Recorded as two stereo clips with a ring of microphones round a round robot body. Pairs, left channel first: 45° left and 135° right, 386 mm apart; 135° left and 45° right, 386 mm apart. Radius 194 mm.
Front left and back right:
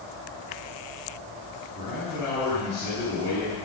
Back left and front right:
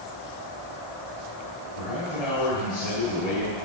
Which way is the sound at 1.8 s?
120° left.